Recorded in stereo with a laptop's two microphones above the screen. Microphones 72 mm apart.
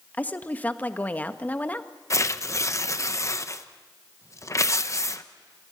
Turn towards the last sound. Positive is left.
turn(degrees=40)  # may be behind; listen again after turning